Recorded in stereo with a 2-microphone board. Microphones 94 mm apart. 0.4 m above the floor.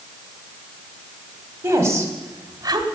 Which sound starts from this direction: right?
A woman speaking, at 1.6 s.